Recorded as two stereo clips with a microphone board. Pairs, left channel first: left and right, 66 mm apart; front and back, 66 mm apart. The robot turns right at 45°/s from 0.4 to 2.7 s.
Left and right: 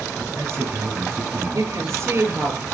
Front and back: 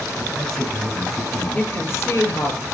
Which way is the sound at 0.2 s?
90° right.